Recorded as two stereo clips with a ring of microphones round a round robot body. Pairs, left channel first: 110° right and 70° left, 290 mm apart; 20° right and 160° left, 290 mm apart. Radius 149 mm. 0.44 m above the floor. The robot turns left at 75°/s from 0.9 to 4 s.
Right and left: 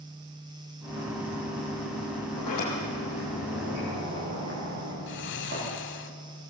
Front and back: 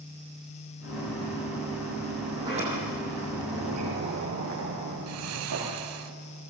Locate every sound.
2.4 s a sliding door: 115° right, 8.5 m; by 5.7 s 120° left, 8.5 m
5.1 s snoring: 165° right, 0.9 m